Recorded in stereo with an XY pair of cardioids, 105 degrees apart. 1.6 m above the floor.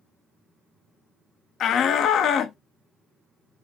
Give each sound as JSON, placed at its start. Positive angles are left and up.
{"t": 1.6, "sound": "a shout", "azimuth_deg": 65, "distance_m": 0.5}